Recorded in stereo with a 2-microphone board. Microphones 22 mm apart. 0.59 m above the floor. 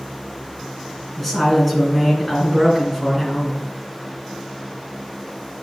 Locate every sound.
1.2 s a woman speaking: 10° left (ahead or behind), 3 m